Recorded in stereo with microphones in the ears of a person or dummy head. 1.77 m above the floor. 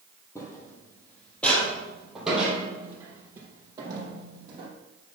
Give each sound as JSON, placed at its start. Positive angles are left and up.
{"t": 0.3, "sound": "footsteps", "side_deg": 15, "distance_m": 3.5}